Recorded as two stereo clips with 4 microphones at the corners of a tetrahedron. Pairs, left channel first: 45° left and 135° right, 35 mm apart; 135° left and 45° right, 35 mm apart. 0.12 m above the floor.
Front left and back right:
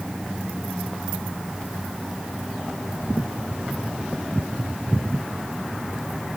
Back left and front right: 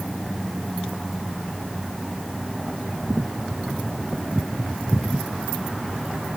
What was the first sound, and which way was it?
Only background noise.